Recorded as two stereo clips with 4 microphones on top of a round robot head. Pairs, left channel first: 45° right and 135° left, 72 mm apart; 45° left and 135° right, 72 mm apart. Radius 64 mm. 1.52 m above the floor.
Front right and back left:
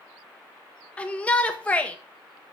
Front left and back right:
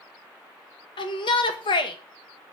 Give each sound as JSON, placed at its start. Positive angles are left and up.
{"t": 1.0, "sound": "a shout", "azimuth_deg": 30, "distance_m": 1.9}